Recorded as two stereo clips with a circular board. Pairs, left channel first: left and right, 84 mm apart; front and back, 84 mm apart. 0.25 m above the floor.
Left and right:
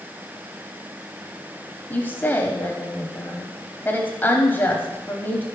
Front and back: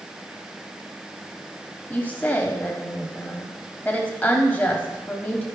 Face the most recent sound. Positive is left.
turn(degrees=45)